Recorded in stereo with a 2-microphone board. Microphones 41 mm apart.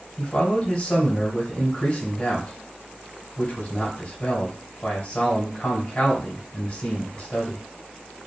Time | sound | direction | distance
0.2 | a man speaking | 30° left (ahead or behind) | 1.5 m